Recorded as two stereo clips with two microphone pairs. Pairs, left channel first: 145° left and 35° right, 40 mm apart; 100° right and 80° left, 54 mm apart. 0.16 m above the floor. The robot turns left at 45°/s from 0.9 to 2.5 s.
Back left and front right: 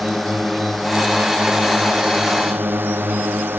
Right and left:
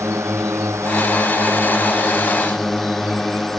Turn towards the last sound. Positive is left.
turn(degrees=-15)